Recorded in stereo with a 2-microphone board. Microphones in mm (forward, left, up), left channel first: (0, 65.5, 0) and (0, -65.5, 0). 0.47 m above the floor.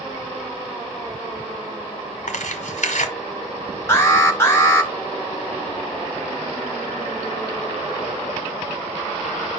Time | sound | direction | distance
2.3 | tearing paper | 80° left | 1.8 m
3.9 | an alarm | 20° left (ahead or behind) | 3 m